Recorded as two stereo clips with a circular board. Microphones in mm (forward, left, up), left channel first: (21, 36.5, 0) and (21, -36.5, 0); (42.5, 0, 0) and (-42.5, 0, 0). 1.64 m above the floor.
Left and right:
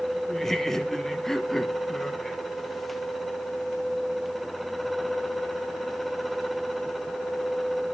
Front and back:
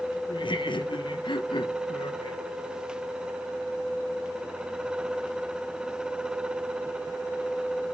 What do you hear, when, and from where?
0.3 s laughter: 5° left, 1.3 m